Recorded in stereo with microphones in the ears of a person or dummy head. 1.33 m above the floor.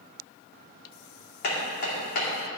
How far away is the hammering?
About 2.5 m.